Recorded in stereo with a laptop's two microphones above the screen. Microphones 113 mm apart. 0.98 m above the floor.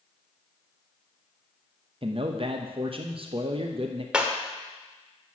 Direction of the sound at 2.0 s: 55° right (ahead or behind).